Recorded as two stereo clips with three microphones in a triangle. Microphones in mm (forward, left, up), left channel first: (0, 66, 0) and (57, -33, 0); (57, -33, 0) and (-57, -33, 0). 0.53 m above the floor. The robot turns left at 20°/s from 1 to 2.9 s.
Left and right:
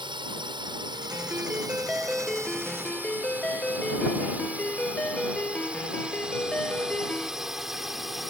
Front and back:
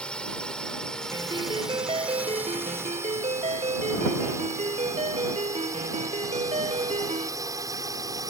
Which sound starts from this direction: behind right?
A ringtone, at 1.1 s.